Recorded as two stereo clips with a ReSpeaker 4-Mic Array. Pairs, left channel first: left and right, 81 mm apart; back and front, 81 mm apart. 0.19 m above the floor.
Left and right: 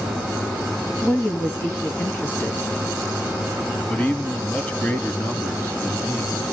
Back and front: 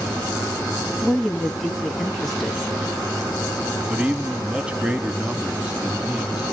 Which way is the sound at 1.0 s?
95° left.